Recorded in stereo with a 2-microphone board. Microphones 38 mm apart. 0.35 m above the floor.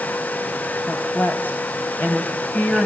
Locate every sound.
0.8 s a woman speaking: 60° left (ahead or behind), 2 m